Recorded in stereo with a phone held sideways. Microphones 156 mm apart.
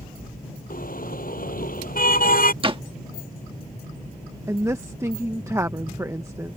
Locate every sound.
0.7 s a car horn: 65° left (ahead or behind)
2.6 s a door slam: 35° right (ahead or behind)
4.5 s a woman speaking: 20° right (ahead or behind)